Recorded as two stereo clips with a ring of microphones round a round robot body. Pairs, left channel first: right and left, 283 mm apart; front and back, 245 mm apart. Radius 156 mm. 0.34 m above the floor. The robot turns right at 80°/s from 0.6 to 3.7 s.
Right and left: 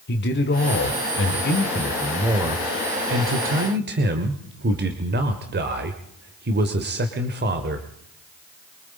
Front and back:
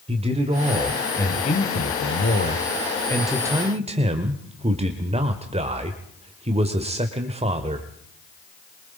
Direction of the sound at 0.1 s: 125° right.